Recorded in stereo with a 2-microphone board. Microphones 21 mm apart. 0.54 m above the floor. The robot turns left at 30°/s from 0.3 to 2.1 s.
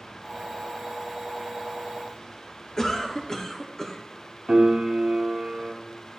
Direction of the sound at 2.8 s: 25° left (ahead or behind).